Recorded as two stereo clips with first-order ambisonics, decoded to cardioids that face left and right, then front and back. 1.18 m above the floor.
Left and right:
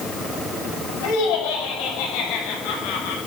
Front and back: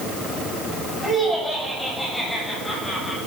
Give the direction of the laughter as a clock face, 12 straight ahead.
9 o'clock.